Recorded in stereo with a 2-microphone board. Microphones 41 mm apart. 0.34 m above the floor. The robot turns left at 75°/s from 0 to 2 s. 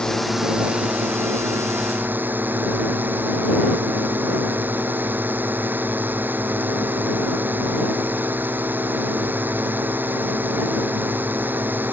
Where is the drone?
20° left; by 11.9 s 130° right.